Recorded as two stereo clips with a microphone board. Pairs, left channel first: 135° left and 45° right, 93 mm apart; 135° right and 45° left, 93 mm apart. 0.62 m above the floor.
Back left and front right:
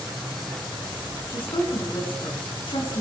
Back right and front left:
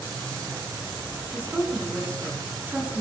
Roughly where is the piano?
I don't hear a piano.